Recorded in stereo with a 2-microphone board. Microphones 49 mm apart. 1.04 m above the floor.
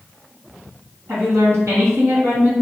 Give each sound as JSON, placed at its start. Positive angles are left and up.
{"t": 1.1, "sound": "a woman speaking", "side_deg": -60, "distance_m": 2.0}